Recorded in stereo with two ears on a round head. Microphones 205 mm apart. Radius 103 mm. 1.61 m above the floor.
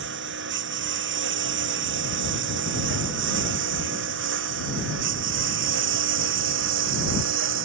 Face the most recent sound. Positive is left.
turn(degrees=-60)  # may be behind; listen again after turning